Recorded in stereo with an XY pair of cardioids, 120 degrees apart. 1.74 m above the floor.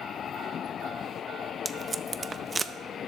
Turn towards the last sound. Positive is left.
turn(degrees=-25)